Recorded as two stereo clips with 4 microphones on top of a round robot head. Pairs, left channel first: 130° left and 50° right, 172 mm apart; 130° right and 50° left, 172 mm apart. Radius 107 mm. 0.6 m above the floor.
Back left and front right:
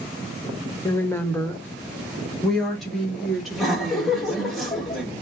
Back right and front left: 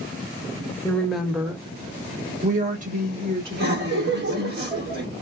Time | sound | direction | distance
0.8 | a woman speaking | 170° left | 1.2 m
3.5 | laughter | 40° left | 2 m